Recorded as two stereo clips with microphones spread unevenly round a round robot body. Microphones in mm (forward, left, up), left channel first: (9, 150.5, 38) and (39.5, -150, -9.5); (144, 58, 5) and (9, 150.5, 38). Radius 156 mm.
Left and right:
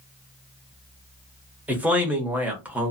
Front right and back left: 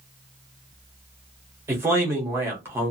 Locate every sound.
1.7 s a man speaking: 135° right, 0.8 m